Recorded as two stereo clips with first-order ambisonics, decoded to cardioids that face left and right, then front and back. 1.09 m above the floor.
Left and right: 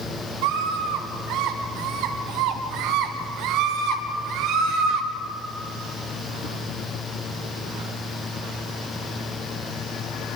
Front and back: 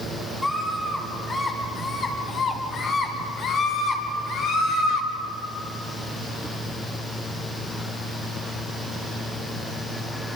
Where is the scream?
80° right, 4 m; by 5.1 s 45° right, 4.5 m.